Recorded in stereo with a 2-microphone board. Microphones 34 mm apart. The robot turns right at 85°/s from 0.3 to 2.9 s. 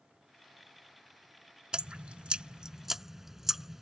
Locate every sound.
1.7 s dripping: 25° right (ahead or behind); by 3.8 s 10° right (ahead or behind)